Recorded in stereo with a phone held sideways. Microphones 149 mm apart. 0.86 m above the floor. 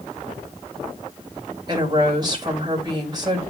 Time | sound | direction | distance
1.7 | a woman speaking | 25° right (ahead or behind) | 3.5 m